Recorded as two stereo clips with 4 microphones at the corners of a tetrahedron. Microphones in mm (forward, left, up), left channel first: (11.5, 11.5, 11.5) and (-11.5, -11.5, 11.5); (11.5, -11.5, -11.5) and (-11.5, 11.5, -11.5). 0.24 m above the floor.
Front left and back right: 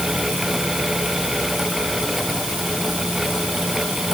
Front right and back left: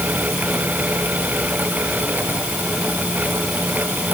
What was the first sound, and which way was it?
Only background noise.